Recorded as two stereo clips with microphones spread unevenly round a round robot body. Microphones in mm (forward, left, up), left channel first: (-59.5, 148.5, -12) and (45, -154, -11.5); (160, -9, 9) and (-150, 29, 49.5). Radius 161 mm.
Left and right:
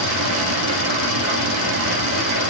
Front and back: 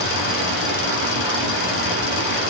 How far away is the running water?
About 2 m.